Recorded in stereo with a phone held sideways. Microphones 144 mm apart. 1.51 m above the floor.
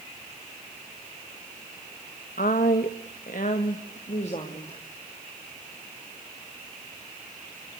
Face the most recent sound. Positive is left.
turn(degrees=40)  # may be behind; listen again after turning